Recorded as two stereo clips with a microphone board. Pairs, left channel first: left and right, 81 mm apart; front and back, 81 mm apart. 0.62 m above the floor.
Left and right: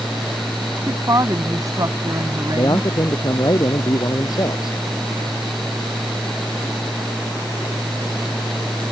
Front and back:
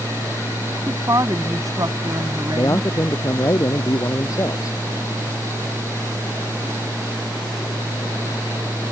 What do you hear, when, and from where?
0.9 s a woman speaking: 135° right
2.5 s a man speaking: 50° left